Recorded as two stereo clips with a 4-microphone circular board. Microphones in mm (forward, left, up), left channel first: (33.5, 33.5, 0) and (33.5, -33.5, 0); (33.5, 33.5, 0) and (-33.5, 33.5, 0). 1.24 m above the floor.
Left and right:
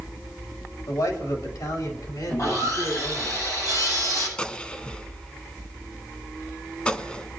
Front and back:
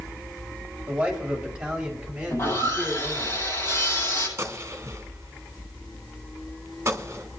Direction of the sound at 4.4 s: 155° left.